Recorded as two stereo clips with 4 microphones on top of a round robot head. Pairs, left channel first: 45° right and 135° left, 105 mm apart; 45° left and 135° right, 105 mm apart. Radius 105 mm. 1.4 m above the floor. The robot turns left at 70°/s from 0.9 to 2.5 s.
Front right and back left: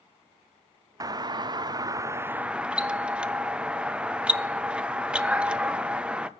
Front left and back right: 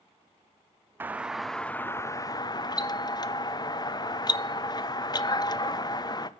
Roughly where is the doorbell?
Behind.